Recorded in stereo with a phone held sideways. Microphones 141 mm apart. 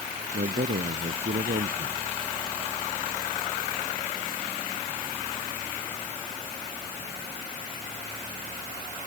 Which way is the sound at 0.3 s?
85° right.